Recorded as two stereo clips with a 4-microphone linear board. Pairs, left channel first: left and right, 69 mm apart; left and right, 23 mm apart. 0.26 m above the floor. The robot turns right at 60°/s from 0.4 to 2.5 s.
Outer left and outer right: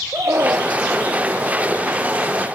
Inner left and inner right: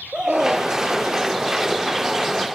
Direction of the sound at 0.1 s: 40° right (ahead or behind).